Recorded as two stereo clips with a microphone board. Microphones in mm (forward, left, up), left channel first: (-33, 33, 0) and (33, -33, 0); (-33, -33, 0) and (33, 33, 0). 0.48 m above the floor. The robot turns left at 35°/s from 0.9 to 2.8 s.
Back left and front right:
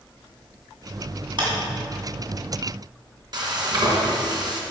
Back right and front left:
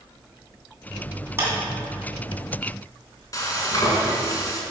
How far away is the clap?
About 2.5 m.